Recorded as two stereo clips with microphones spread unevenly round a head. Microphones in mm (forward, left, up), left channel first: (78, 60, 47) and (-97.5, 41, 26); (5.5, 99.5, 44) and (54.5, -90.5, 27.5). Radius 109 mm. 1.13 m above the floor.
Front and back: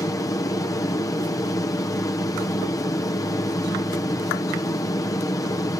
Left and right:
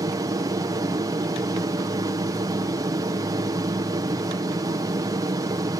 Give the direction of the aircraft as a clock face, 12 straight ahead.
2 o'clock.